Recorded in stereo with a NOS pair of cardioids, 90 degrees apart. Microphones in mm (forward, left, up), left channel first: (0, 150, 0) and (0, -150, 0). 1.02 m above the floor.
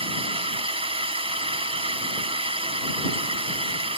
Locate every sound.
0.0 s a drone: 20° right